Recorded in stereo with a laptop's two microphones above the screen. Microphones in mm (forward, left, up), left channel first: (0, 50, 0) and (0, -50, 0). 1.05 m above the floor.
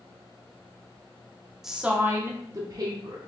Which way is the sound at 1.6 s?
5° right (ahead or behind).